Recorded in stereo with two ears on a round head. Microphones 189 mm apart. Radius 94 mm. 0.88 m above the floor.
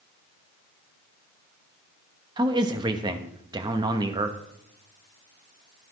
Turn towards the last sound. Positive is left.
turn(degrees=-20)  # may be behind; listen again after turning